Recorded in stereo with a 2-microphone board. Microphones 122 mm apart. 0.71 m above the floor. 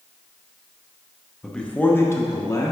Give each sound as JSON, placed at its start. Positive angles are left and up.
{"t": 1.4, "sound": "a man speaking", "side_deg": 0, "distance_m": 0.8}